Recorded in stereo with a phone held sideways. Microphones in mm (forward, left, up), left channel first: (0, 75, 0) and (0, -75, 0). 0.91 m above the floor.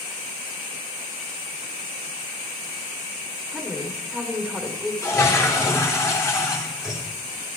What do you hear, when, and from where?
3.5 s a woman speaking: centre (ahead or behind), 2.5 m
5.0 s a toilet flushing: 20° left (ahead or behind), 3 m